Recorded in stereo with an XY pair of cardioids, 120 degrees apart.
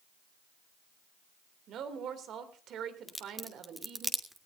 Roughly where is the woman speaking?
Ahead right.